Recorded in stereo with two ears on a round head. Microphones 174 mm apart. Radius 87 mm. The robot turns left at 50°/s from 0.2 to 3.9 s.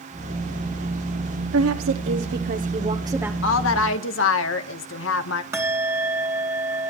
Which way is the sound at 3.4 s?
65° left (ahead or behind).